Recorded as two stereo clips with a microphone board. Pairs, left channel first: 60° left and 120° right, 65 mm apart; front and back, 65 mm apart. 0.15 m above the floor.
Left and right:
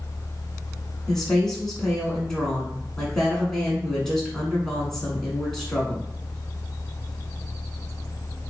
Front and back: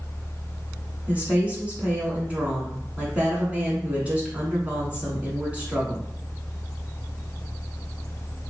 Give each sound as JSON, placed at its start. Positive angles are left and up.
{"t": 1.1, "sound": "a woman speaking", "azimuth_deg": 135, "distance_m": 1.5}